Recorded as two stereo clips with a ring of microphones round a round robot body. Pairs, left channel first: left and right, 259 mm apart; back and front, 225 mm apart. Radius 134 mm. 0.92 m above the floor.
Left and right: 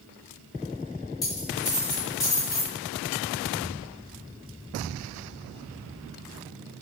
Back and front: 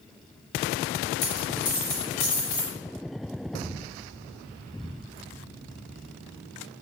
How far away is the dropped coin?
About 1.7 m.